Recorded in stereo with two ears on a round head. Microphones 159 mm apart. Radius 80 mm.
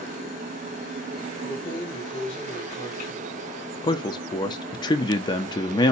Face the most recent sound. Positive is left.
turn(degrees=25)  # may be behind; listen again after turning